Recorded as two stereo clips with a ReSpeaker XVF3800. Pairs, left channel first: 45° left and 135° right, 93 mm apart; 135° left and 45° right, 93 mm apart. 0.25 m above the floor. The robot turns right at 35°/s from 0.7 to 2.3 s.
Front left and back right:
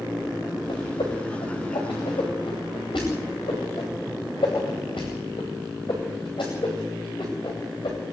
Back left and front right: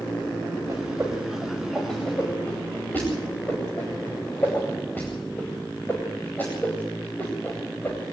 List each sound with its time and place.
0.7 s a whoosh: 10° left, 9.5 m; by 8.0 s 65° left, 9.5 m